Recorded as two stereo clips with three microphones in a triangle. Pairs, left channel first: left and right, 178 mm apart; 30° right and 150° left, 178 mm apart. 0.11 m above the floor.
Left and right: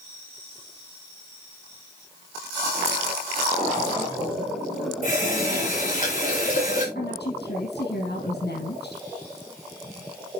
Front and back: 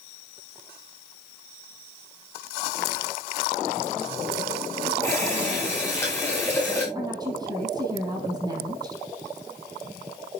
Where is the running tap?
45° left, 8.5 m.